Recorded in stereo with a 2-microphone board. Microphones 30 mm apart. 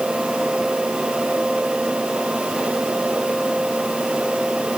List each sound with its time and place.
Only background noise.